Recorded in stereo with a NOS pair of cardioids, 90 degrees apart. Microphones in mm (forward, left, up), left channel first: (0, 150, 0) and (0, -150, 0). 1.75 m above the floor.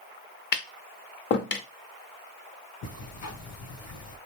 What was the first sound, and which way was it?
Tapping, 40° left.